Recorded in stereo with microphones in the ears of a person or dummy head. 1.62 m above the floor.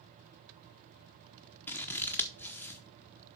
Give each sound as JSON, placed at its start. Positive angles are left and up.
{"t": 1.7, "sound": "scissors", "side_deg": 10, "distance_m": 1.0}